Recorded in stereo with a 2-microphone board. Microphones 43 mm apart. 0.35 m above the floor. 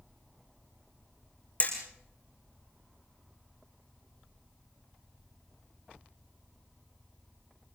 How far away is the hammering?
About 5.5 m.